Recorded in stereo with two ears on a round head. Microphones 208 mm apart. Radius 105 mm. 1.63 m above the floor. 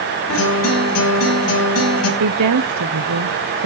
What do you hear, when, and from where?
0.3 s a guitar: 80° left, 6 m
2.2 s a woman speaking: 75° right (ahead or behind), 0.8 m